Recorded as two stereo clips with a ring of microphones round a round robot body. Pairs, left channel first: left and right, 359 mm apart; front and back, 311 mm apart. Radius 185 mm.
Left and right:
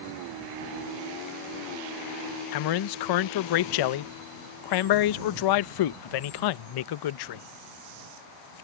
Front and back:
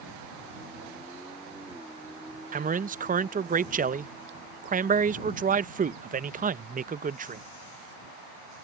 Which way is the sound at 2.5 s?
115° left.